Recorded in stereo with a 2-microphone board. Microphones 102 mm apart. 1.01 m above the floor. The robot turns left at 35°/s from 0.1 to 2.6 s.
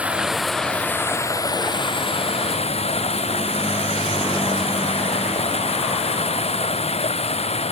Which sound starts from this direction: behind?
Running water, at 0.0 s.